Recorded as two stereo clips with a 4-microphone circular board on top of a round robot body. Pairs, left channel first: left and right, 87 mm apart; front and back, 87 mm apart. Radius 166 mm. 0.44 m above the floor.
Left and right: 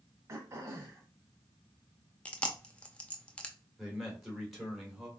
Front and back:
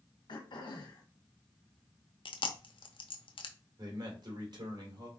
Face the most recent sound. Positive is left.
turn(degrees=-175)